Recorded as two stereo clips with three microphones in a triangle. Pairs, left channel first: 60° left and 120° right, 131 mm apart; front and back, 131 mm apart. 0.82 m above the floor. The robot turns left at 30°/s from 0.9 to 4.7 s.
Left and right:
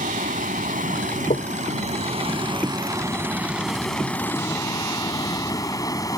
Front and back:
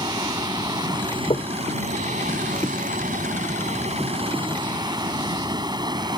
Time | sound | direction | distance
0.0 | running water | 125° right | ?
1.3 | knocking | 45° left | ?